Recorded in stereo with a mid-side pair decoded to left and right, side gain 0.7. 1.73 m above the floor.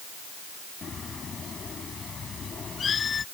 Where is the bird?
30° left.